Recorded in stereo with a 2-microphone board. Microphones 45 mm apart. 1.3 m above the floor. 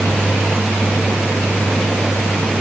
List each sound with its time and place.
Only background noise.